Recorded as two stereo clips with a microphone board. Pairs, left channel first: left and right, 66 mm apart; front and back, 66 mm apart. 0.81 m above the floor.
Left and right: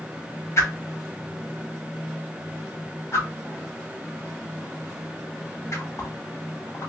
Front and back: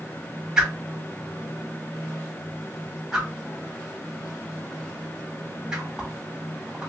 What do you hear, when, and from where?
0.6 s a whoosh: 105° left, 0.8 m